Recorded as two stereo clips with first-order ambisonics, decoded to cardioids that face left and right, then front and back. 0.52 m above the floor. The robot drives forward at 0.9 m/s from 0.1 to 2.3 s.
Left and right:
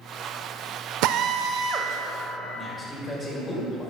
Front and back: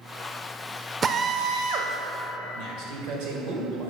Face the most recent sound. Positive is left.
turn(degrees=160)